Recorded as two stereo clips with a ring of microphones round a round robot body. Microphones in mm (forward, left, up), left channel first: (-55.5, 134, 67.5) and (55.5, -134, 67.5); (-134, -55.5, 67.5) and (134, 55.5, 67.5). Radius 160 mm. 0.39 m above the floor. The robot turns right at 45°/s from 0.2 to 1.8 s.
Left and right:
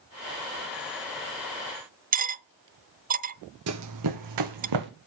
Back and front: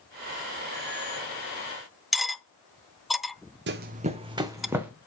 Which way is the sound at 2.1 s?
65° right.